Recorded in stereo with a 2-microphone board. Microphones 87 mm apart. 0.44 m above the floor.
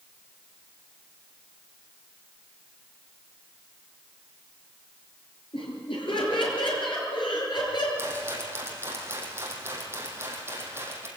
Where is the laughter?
80° left, 8.5 m; by 7.9 s 60° left (ahead or behind), 8 m.